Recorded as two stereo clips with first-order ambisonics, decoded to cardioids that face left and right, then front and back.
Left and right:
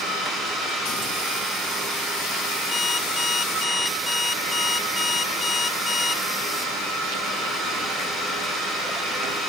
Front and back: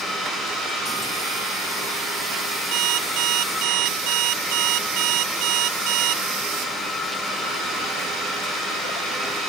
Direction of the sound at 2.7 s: 160° left.